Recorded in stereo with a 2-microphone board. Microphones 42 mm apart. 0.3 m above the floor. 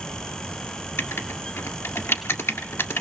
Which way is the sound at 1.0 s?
70° left (ahead or behind).